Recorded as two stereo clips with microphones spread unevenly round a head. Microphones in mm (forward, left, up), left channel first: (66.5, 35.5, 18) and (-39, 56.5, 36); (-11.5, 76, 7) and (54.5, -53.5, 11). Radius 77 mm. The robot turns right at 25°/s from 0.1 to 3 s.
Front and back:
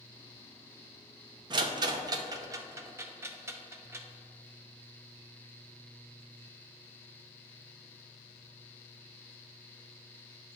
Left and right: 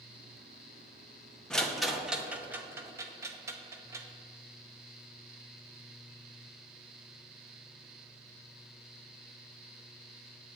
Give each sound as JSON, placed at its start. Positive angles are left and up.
{"t": 1.5, "sound": "a rattle", "azimuth_deg": -165, "distance_m": 0.7}